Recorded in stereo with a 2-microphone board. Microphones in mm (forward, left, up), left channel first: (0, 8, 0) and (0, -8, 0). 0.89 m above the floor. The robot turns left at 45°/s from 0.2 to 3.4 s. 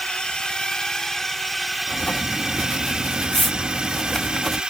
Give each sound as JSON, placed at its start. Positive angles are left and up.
{"t": 0.0, "sound": "a drone", "azimuth_deg": 70}
{"t": 1.9, "sound": "writing", "azimuth_deg": 95}